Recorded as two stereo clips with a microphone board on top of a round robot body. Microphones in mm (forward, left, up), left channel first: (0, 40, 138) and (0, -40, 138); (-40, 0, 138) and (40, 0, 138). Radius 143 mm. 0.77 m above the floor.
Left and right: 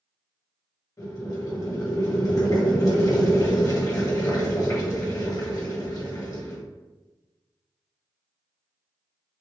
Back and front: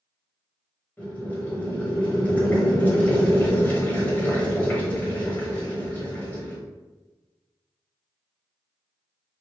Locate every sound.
1.0 s boiling: 120° left, 1.6 m